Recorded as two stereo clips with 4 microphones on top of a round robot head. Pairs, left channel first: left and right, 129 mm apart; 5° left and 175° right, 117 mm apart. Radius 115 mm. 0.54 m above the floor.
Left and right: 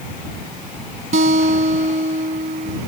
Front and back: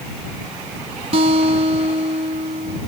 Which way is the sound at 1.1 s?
130° right.